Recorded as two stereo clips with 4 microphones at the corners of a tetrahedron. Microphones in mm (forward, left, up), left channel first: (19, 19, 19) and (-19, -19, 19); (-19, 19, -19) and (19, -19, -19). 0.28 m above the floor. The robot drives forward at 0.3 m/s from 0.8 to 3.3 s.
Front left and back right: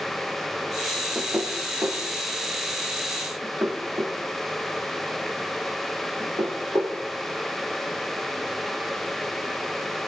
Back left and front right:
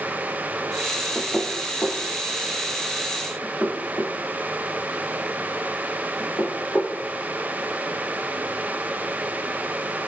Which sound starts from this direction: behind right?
Knocking, at 1.1 s.